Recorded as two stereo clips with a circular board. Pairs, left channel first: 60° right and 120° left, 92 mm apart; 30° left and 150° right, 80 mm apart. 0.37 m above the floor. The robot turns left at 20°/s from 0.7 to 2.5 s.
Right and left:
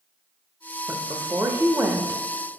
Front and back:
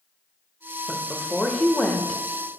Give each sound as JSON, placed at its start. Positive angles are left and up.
{"t": 0.9, "sound": "a woman speaking", "azimuth_deg": 110, "distance_m": 0.9}